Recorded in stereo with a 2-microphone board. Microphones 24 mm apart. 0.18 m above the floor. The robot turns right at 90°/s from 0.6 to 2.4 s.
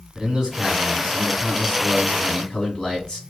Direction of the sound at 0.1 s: 30° right (ahead or behind).